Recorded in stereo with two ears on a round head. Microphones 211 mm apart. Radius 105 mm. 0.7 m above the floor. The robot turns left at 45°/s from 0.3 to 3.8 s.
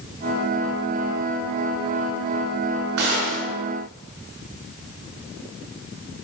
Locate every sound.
3.0 s a gunshot: 80° right, 6.5 m; by 3.5 s 60° right (ahead or behind), 6.5 m